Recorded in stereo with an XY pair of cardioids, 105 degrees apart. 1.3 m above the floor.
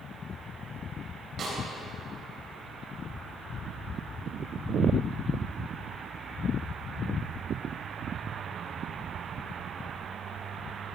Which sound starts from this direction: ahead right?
A snare drum, at 1.4 s.